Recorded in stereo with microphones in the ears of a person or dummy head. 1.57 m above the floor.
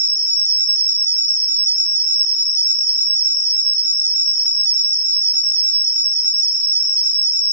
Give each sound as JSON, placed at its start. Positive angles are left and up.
{"t": 0.0, "sound": "an insect", "side_deg": -45, "distance_m": 1.3}